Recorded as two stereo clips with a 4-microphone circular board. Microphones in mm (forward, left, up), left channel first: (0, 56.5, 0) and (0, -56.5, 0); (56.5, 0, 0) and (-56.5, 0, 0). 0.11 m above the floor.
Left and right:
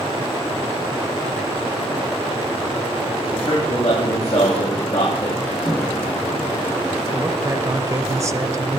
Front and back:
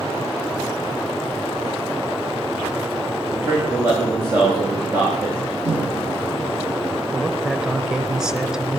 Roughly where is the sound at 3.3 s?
Left.